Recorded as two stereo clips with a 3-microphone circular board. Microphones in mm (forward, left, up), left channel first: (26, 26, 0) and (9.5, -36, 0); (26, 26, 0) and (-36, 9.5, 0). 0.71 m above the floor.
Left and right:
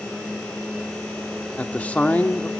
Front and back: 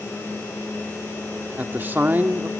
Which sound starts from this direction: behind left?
A man speaking, at 1.6 s.